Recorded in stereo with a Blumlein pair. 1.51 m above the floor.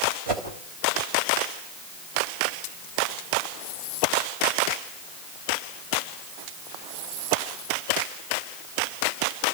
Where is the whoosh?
40° right, 3.5 m.